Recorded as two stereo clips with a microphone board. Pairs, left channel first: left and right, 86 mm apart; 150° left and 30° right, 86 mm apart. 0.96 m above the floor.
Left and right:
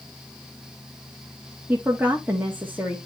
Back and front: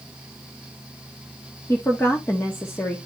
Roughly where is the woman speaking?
Behind right.